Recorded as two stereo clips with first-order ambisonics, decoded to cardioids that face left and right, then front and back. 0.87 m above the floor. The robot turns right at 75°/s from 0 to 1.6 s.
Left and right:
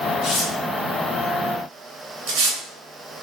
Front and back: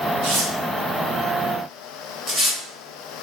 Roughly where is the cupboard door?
I don't hear a cupboard door.